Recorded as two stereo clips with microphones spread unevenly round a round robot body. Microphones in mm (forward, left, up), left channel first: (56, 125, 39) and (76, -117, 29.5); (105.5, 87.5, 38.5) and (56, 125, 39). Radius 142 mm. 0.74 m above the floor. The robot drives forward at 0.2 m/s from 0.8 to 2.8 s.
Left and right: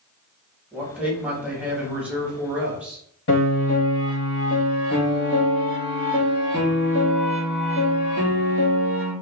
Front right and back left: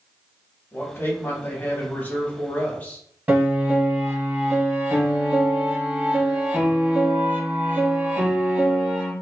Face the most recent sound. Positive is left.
turn(degrees=95)